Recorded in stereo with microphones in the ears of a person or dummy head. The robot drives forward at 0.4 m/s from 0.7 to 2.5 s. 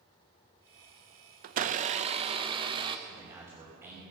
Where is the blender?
50° right (ahead or behind), 0.6 m; by 3.0 s 30° right (ahead or behind), 0.9 m.